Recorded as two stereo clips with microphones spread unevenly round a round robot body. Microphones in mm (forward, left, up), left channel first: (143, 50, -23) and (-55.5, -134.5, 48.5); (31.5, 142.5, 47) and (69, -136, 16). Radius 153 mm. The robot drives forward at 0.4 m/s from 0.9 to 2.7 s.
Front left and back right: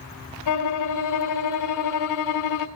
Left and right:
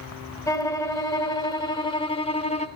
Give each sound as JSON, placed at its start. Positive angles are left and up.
{"t": 0.5, "sound": "a violin", "azimuth_deg": 20, "distance_m": 1.8}